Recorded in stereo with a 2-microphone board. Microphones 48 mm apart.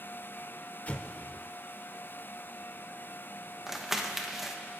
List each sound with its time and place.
0.9 s an explosion: 35° left (ahead or behind), 0.7 m
3.7 s crumpling: 5° right (ahead or behind), 0.9 m